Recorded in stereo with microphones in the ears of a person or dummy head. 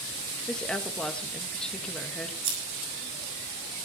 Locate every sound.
0.5 s a woman speaking: 5° left (ahead or behind), 1.6 m
2.4 s scissors: 80° right, 6.5 m